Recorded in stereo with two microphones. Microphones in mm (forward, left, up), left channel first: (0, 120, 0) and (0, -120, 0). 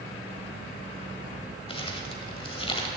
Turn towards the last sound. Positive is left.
turn(degrees=25)  # may be behind; listen again after turning